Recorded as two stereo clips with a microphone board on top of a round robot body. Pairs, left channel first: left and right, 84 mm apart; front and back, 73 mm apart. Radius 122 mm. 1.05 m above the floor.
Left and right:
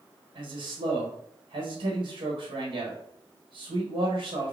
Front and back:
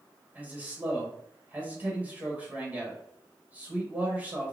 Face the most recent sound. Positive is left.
turn(degrees=-110)